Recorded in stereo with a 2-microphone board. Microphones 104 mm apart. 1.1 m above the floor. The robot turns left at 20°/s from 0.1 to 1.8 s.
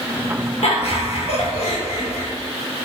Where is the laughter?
70° left (ahead or behind), 1.2 m.